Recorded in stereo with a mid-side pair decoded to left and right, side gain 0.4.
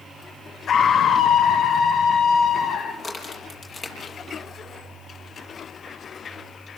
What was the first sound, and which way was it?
A scream, 60° left.